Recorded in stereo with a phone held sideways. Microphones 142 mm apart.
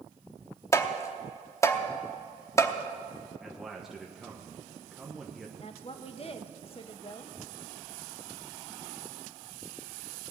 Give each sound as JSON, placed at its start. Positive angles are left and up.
{"t": 0.7, "sound": "tapping", "side_deg": 20, "distance_m": 0.9}
{"t": 3.4, "sound": "a man speaking", "side_deg": -5, "distance_m": 1.1}
{"t": 5.6, "sound": "a woman speaking", "side_deg": 45, "distance_m": 0.9}